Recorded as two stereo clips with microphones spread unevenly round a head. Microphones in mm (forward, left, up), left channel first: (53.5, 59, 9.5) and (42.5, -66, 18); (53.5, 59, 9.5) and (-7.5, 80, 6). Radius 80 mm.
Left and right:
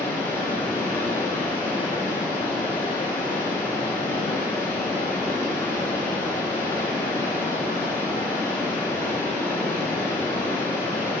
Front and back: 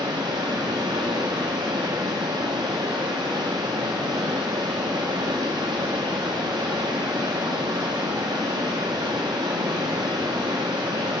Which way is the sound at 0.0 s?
165° left.